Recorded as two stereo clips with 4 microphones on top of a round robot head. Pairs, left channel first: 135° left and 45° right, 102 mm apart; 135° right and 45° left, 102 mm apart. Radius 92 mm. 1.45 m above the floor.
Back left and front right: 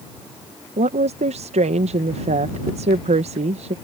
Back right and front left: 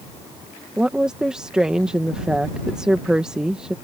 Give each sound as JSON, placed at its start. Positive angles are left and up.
{"t": 0.8, "sound": "a woman speaking", "azimuth_deg": -40}